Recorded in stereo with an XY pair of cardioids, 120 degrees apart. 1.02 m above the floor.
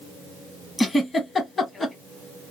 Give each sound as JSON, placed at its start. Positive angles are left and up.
{"t": 0.8, "sound": "a giggle", "azimuth_deg": 25, "distance_m": 1.1}